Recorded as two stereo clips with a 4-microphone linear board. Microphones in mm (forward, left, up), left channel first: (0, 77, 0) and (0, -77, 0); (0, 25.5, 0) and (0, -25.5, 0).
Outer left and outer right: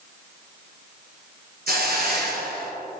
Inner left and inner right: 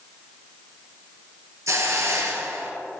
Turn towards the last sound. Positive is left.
turn(degrees=-85)